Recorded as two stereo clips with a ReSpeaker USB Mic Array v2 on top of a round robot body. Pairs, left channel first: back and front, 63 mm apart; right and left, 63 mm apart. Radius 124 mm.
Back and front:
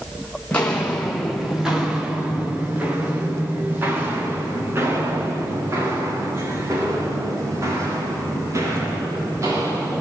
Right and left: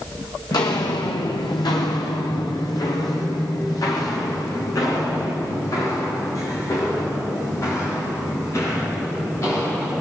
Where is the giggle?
I don't hear a giggle.